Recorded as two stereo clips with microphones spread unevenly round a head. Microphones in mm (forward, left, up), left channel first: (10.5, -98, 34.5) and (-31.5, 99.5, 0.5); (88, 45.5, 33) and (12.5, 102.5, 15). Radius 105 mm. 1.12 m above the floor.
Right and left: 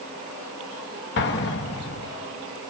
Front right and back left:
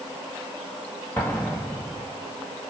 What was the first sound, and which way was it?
An explosion, 115° right.